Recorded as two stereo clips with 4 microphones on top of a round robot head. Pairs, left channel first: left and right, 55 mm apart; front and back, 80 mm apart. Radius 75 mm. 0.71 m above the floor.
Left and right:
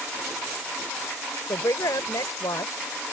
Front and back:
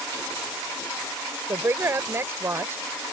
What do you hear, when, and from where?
1.5 s a woman speaking: 125° left